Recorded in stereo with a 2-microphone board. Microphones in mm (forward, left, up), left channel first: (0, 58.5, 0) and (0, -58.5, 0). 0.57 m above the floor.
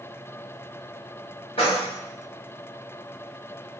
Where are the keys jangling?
50° left (ahead or behind), 1.2 m.